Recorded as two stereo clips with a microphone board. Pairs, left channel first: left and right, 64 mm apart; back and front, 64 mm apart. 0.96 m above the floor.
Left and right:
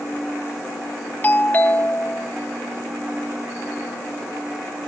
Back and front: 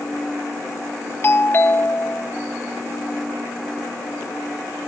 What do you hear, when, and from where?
1.2 s a doorbell: 140° left